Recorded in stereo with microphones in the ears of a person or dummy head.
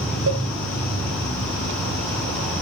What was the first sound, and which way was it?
A cowbell, 60° right (ahead or behind).